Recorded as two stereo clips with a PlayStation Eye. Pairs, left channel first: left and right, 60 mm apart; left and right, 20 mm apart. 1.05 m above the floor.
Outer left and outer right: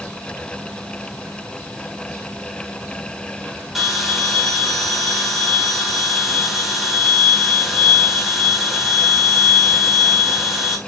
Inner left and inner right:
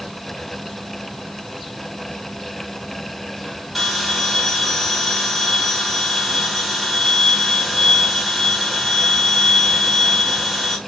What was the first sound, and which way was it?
A bell, 5° right (ahead or behind).